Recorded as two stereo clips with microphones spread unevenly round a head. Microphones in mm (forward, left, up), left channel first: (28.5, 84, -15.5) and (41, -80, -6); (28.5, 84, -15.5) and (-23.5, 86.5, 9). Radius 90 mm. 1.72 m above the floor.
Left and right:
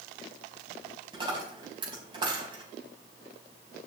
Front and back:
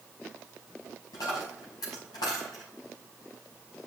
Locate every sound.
1.1 s a dropped coin: 25° right, 5 m